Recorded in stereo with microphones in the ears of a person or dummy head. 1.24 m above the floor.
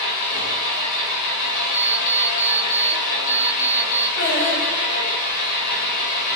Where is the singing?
60° left (ahead or behind), 2.0 m.